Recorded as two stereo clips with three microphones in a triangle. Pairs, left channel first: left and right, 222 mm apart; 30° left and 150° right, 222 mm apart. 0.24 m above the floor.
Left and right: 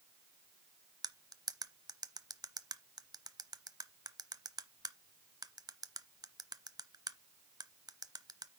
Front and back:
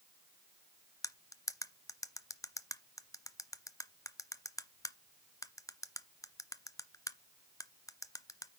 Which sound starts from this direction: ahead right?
Cutlery clinking, at 1.0 s.